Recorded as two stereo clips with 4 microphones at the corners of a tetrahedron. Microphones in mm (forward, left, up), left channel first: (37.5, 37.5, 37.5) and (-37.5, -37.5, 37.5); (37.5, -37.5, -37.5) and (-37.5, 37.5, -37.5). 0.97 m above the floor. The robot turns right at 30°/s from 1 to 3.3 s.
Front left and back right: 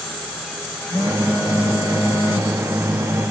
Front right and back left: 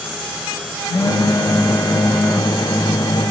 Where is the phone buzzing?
5° right, 0.8 m; by 3.3 s 65° left, 0.8 m.